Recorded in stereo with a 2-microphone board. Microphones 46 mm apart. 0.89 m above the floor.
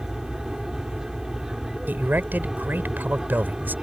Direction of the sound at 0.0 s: 10° right (ahead or behind).